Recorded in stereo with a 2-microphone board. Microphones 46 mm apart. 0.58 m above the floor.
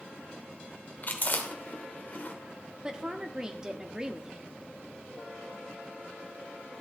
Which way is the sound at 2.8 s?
20° right (ahead or behind).